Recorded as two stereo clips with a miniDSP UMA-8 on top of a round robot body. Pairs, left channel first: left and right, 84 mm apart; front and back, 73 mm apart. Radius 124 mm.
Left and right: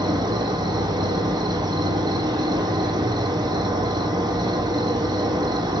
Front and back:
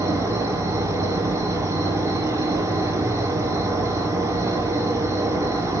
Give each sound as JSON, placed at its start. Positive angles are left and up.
{"t": 0.0, "sound": "an insect", "azimuth_deg": -130, "distance_m": 1.1}